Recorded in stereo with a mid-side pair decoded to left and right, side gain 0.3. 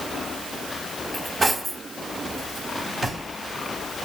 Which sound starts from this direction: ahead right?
Cutlery clinking, at 1.1 s.